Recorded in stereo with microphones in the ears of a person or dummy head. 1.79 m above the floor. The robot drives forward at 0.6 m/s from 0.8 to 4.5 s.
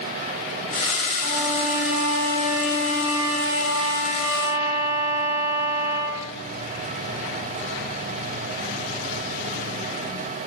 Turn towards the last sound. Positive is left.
turn(degrees=-30)  # may be behind; listen again after turning